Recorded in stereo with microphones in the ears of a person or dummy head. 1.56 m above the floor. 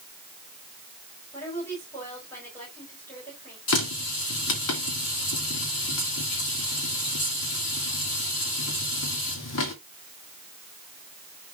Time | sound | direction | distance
1.3 | a woman speaking | 15° left (ahead or behind) | 6 m
3.7 | a running tap | 75° left (ahead or behind) | 2.5 m